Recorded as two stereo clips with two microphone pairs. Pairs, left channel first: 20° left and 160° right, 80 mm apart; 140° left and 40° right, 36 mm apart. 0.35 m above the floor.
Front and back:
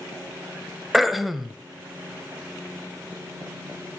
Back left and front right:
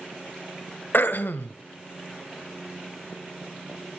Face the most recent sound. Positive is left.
turn(degrees=115)